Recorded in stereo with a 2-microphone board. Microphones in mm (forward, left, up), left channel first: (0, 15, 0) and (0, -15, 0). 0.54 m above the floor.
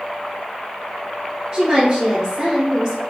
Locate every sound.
1.5 s a woman speaking: 35° right (ahead or behind), 1.2 m